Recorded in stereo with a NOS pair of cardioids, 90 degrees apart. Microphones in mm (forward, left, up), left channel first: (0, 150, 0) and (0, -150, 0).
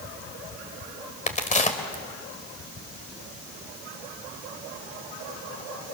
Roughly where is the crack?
Ahead left.